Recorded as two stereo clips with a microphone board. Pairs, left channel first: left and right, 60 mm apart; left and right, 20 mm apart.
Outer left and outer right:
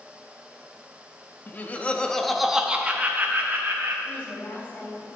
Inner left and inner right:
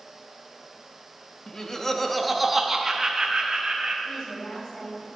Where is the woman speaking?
30° left (ahead or behind), 4.5 m.